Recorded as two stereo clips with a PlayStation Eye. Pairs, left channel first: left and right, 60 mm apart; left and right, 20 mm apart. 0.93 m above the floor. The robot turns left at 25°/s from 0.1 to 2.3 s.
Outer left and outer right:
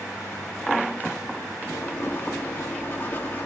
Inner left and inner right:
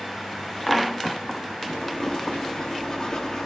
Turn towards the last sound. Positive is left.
turn(degrees=30)  # may be behind; listen again after turning